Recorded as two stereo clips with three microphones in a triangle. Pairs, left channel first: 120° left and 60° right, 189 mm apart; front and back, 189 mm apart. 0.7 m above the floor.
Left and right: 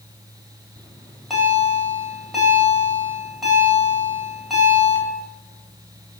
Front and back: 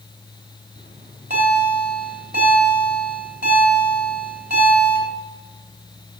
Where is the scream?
No scream in this recording.